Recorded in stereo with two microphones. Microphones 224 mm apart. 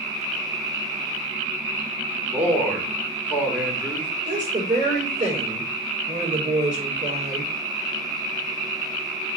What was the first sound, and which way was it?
A man speaking, 5° right (ahead or behind).